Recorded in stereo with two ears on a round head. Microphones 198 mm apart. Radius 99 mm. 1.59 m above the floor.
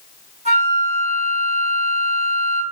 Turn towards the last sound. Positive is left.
turn(degrees=-30)  # may be behind; listen again after turning